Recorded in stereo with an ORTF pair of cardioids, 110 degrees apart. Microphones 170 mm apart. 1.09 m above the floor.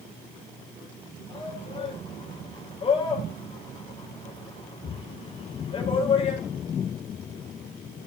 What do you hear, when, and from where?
1.3 s a shout: 35° left, 5 m